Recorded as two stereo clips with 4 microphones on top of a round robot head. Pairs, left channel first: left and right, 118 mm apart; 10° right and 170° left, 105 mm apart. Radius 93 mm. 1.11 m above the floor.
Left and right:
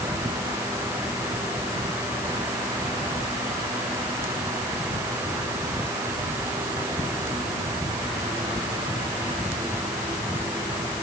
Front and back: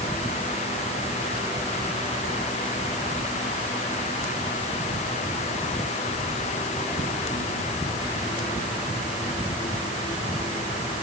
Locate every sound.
Only background noise.